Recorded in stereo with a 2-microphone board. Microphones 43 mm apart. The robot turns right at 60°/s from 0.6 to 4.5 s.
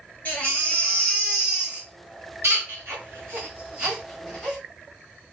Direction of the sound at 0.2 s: 40° left (ahead or behind).